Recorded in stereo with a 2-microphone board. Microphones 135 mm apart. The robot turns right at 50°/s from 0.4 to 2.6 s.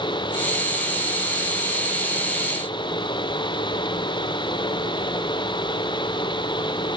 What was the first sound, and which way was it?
Only background noise.